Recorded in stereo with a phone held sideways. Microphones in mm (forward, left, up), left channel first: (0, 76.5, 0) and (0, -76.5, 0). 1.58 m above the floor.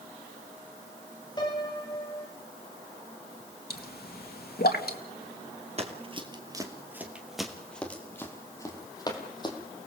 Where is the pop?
80° left, 2.0 m.